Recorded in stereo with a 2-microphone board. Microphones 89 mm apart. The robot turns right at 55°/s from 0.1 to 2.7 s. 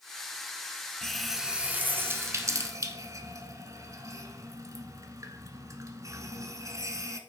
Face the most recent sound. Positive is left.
turn(degrees=-40)  # may be behind; listen again after turning